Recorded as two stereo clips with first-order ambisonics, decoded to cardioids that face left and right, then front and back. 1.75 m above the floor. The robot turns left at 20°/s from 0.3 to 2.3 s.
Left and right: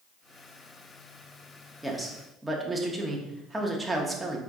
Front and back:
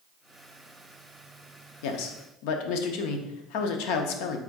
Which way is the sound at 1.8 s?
5° left.